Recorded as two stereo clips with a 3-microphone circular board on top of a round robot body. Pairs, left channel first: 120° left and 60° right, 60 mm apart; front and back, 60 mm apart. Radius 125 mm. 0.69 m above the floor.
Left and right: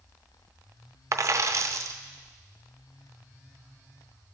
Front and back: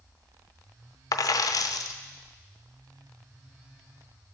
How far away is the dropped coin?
About 0.5 m.